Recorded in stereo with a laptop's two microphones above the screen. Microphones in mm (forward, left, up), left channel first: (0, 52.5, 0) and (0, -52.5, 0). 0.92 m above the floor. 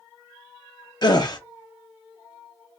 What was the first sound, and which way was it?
A gasp, 40° left (ahead or behind).